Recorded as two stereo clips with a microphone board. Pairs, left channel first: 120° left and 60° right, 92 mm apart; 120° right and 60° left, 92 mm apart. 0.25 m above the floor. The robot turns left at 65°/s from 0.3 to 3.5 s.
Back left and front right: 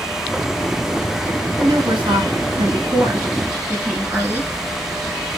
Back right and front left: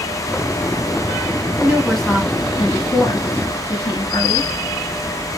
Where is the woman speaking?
15° right, 2.5 m; by 4.5 s 135° right, 2.5 m.